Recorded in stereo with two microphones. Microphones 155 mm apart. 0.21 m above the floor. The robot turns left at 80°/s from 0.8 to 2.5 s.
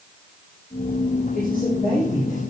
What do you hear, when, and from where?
1.3 s a man speaking: 80° left, 5 m; by 2.4 s 5° right, 5 m